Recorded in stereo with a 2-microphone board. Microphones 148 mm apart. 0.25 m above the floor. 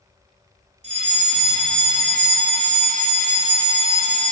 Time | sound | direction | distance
0.8 | a fire alarm | 50° right (ahead or behind) | 4.5 m